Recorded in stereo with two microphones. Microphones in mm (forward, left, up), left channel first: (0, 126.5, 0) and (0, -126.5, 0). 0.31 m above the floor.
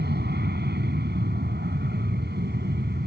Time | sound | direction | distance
0.0 | an aircraft | 40° right (ahead or behind) | ?